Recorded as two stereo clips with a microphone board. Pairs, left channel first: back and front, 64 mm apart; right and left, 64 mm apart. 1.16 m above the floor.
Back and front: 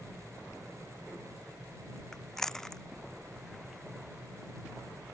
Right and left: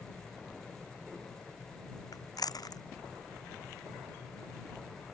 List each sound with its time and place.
2.1 s chewing: 100° right